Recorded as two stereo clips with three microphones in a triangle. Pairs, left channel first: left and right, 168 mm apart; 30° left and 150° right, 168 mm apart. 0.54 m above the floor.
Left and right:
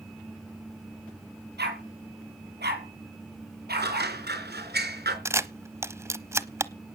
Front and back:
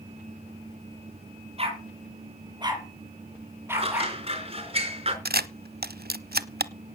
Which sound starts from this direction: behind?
A camera shutter, at 5.2 s.